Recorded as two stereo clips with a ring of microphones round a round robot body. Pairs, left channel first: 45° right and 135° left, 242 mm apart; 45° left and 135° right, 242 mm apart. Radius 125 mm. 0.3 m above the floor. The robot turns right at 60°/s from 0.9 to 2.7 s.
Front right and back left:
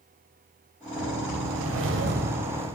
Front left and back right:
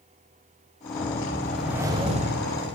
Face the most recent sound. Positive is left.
turn(degrees=-160)